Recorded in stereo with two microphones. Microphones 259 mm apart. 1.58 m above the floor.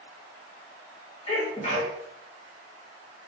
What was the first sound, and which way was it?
A sneeze, 25° left (ahead or behind).